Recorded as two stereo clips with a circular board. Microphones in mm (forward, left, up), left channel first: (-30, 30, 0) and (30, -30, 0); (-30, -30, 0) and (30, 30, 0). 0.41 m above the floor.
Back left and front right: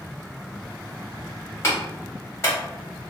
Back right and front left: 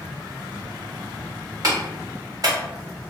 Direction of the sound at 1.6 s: 80° left.